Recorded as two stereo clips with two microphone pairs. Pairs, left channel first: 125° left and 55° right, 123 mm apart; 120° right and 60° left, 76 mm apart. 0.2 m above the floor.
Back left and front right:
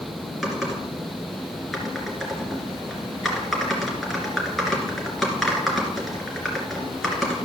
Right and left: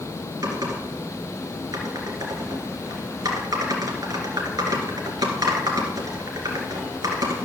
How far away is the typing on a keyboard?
About 2.5 m.